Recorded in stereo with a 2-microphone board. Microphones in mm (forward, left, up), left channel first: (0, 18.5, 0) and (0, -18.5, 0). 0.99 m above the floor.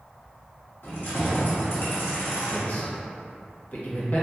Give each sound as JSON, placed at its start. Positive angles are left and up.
{"t": 0.8, "sound": "keys jangling", "side_deg": 75, "distance_m": 1.0}
{"t": 2.5, "sound": "a man speaking", "side_deg": 50, "distance_m": 0.9}